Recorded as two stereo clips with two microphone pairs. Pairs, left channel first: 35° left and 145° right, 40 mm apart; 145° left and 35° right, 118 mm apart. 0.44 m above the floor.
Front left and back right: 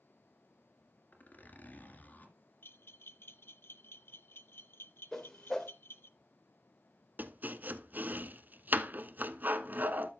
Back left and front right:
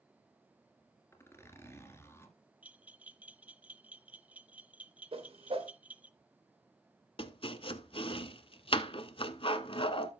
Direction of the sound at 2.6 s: 40° left.